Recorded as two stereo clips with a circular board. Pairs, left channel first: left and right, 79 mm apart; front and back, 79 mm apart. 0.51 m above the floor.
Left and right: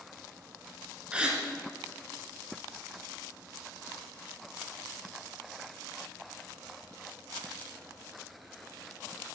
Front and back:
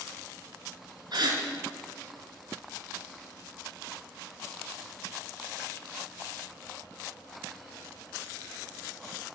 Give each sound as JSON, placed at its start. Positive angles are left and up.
{"t": 1.1, "sound": "a gasp", "azimuth_deg": -165, "distance_m": 1.6}